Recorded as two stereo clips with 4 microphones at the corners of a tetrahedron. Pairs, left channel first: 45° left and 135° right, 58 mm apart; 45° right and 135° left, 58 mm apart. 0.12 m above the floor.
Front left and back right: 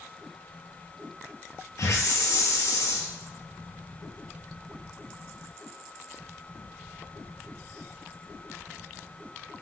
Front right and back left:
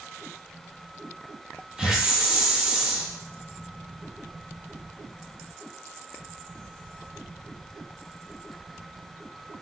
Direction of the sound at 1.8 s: 60° left.